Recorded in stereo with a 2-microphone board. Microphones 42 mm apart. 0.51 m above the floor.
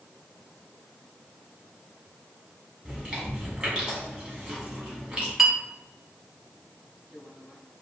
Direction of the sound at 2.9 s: 20° right (ahead or behind).